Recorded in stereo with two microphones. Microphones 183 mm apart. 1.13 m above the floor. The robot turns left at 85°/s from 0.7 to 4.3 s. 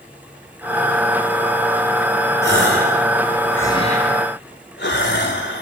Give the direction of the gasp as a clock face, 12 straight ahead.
3 o'clock.